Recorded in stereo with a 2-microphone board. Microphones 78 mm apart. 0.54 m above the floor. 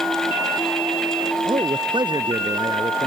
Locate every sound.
1.4 s a man speaking: 80° right